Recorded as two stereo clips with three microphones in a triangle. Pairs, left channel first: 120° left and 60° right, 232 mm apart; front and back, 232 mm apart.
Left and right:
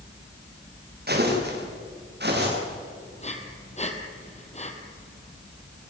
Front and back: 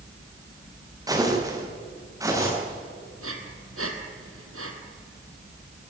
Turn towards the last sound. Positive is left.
turn(degrees=180)